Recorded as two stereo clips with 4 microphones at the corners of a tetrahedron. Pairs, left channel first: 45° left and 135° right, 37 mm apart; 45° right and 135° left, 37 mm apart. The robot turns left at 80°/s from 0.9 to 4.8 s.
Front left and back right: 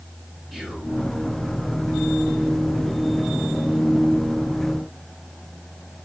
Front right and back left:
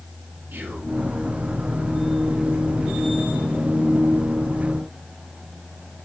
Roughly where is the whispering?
Behind left.